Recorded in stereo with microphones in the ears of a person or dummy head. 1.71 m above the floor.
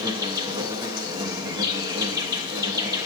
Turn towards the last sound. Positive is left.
turn(degrees=-20)  # may be behind; listen again after turning